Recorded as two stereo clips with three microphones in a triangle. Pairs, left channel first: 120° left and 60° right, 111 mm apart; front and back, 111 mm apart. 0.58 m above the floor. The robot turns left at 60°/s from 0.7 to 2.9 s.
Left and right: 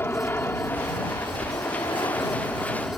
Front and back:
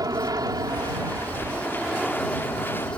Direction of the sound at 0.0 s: 175° left.